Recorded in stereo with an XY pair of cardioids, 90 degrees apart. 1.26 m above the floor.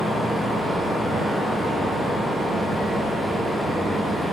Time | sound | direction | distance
0.0 | a fan | 5° right | 2 m